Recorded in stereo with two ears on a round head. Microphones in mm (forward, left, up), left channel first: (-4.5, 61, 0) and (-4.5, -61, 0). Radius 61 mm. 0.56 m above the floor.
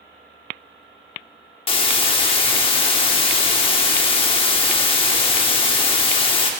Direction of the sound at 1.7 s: 40° left (ahead or behind).